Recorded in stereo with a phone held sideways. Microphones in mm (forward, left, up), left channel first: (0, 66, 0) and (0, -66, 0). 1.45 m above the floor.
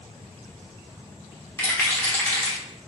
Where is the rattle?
20° left (ahead or behind), 1.1 m.